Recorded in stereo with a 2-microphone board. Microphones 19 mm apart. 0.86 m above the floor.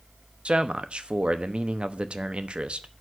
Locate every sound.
0.5 s a man speaking: 60° right (ahead or behind), 1.0 m